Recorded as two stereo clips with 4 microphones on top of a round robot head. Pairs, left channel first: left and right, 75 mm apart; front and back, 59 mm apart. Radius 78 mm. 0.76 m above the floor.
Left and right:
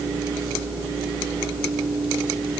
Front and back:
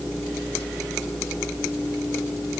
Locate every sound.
Only background noise.